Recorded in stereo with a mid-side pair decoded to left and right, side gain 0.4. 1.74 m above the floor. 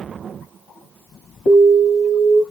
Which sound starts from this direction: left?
An alarm, at 1.5 s.